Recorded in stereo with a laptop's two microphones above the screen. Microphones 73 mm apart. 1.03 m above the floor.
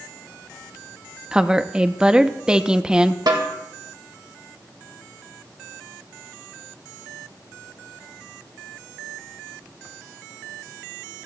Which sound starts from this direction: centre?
A woman speaking, at 1.3 s.